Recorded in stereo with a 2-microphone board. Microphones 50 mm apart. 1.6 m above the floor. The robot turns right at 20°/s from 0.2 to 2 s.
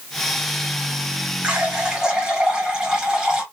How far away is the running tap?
About 2 m.